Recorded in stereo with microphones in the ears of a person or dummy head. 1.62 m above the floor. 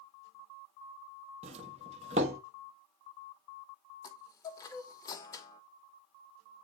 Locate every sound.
1.4 s a doorbell: 30° right (ahead or behind), 1.1 m
4.0 s a chime: 20° left (ahead or behind), 1.4 m